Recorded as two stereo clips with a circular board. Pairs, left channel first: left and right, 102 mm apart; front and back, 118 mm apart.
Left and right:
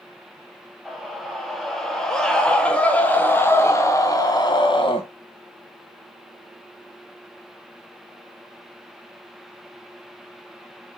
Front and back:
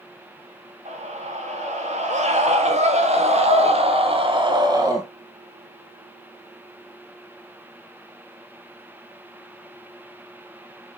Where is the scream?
Straight behind, 4 m; by 5.0 s 120° left, 1.6 m.